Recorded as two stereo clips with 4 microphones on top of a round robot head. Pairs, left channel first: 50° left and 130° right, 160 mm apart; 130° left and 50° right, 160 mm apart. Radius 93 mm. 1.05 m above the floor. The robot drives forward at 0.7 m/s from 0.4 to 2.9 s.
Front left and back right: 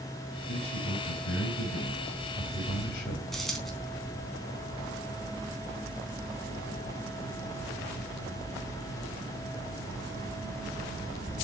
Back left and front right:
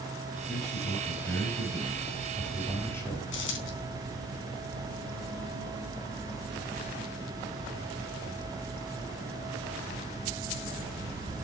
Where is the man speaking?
45° left, 7 m; by 3.2 s 55° left, 6 m.